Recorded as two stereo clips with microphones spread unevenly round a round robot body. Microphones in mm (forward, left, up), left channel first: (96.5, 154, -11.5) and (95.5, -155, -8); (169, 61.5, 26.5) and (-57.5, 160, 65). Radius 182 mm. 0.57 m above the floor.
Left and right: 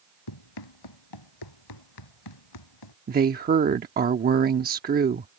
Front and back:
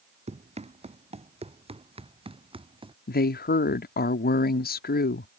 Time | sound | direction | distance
0.3 | running footsteps | 90° left | ?
3.1 | a woman speaking | 40° right | ?